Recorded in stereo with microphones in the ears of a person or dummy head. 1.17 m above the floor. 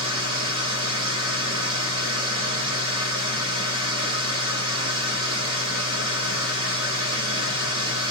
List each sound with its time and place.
0.0 s a machine running: 25° right (ahead or behind), 1.1 m